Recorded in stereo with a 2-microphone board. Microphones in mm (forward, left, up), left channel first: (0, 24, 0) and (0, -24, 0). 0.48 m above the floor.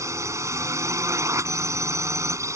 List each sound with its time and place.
0.0 s a drone: 75° right (ahead or behind)